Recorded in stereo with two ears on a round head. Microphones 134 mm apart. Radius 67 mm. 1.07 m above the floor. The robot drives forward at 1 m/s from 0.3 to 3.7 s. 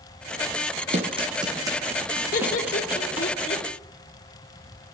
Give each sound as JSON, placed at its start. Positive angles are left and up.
{"t": 0.9, "sound": "running footsteps", "side_deg": -45, "distance_m": 2.0}
{"t": 2.3, "sound": "laughter", "side_deg": 60, "distance_m": 1.8}